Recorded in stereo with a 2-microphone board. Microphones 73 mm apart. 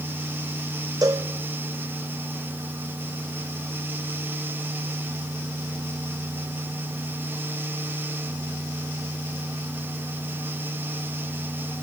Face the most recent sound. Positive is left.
turn(degrees=-55)  # may be behind; listen again after turning